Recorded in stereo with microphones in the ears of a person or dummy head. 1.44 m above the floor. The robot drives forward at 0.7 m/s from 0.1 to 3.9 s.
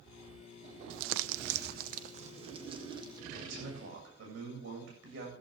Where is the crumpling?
75° right (ahead or behind), 0.7 m; by 3.2 s 25° right (ahead or behind), 1.6 m.